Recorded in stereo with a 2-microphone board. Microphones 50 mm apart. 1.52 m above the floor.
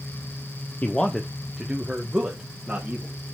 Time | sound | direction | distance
0.8 | a man speaking | 35° left (ahead or behind) | 0.8 m